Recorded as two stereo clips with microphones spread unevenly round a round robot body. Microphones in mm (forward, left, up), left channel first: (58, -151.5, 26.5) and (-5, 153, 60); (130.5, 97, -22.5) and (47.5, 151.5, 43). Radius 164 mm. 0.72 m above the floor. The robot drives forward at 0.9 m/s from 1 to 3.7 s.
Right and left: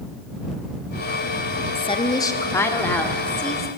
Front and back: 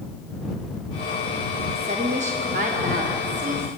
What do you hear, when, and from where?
1.8 s a woman speaking: 140° right, 1.4 m; by 3.7 s 165° right, 3 m